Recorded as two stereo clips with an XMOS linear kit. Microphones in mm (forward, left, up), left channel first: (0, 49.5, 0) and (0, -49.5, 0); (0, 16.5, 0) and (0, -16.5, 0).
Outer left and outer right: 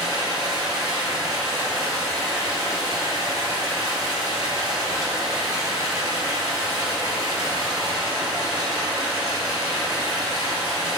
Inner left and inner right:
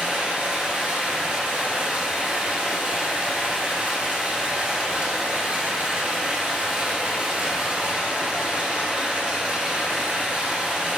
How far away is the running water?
About 1.1 m.